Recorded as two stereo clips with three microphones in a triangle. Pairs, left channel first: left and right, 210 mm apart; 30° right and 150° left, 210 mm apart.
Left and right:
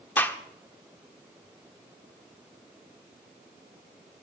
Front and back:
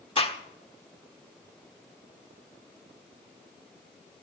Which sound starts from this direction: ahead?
A gunshot, at 0.2 s.